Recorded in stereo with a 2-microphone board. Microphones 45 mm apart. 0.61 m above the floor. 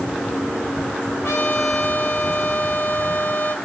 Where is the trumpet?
75° left (ahead or behind), 2.5 m.